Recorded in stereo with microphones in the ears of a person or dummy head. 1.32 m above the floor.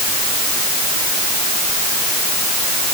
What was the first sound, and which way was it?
Only background noise.